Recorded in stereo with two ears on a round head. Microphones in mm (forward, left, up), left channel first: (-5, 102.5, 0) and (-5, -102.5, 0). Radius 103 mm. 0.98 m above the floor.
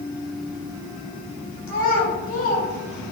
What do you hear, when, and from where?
1.7 s a child speaking: 65° left (ahead or behind), 2 m